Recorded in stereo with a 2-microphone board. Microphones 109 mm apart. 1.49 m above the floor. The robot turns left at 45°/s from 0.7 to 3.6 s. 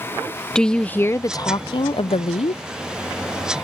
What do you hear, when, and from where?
0.6 s a woman speaking: 175° left; by 2.6 s 85° left